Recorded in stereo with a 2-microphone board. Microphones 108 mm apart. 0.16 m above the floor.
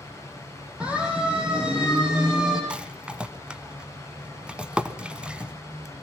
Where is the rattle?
10° right (ahead or behind), 1.1 m.